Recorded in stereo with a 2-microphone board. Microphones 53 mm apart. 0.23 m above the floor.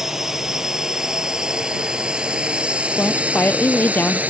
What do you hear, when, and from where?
0.0 s a drone: 10° right (ahead or behind); by 4.3 s 30° right (ahead or behind)
3.0 s a woman speaking: 35° left (ahead or behind)